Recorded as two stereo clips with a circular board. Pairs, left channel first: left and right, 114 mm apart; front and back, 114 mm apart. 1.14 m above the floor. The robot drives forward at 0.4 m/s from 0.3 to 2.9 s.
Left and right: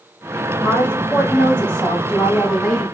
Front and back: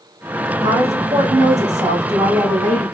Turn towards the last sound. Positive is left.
turn(degrees=170)